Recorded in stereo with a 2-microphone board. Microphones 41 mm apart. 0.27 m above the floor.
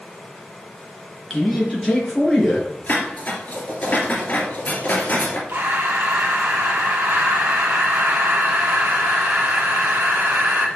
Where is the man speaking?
5° left (ahead or behind), 3.5 m.